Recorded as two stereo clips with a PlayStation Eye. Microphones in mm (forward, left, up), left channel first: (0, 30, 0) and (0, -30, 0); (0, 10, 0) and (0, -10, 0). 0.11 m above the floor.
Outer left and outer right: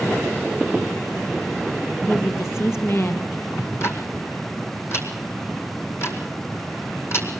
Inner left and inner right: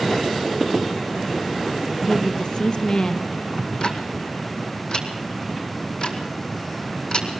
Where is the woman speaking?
45° left (ahead or behind), 3 m.